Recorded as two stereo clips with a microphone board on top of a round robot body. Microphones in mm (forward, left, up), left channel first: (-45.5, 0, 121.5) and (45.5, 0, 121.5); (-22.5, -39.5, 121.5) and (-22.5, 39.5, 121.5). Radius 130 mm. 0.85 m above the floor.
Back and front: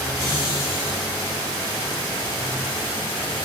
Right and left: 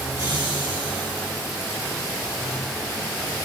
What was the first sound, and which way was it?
Laughter, 135° left.